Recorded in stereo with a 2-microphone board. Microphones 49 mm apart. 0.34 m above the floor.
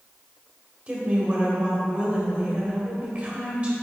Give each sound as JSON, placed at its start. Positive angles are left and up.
{"t": 0.9, "sound": "a woman speaking", "side_deg": -25, "distance_m": 1.6}